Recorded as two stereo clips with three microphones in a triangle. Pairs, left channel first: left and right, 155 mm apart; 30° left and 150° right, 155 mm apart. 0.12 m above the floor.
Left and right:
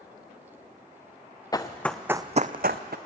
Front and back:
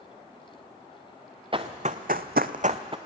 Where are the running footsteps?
155° left, 0.9 m; by 3.0 s 90° right, 0.8 m.